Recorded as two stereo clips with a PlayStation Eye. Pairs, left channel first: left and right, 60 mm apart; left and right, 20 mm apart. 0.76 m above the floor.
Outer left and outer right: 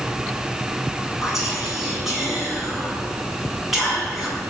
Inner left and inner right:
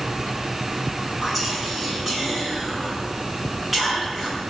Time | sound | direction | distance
1.2 | whispering | 5° right (ahead or behind) | 7.5 m